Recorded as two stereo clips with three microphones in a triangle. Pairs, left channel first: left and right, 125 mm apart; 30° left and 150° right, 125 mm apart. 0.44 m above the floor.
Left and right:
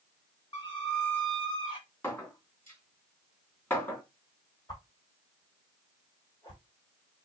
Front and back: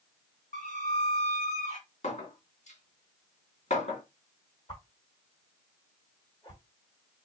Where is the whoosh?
50° left, 1.4 m.